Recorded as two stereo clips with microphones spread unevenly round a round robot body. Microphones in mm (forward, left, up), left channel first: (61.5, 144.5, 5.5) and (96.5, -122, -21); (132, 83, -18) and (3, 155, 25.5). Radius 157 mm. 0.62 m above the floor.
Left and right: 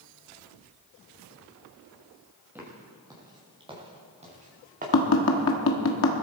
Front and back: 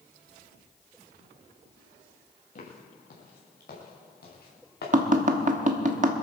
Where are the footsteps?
Straight ahead, 6.5 m; by 5.5 s 30° right, 6.5 m.